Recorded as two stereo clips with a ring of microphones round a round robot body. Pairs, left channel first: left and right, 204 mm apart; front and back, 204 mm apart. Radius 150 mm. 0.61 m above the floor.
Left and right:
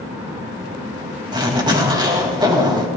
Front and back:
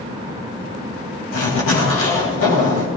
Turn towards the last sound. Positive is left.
turn(degrees=-20)